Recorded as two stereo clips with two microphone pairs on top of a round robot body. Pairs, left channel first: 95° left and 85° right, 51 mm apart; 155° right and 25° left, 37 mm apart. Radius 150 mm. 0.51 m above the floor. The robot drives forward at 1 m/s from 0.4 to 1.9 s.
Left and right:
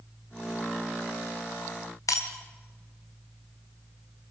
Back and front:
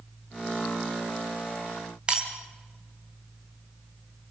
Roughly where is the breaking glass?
Left.